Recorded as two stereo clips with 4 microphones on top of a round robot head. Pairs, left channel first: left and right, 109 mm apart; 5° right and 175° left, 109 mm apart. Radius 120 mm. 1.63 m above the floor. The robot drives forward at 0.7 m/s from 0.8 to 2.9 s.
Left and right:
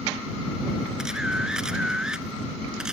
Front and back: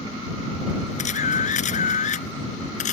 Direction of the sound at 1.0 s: 5° right.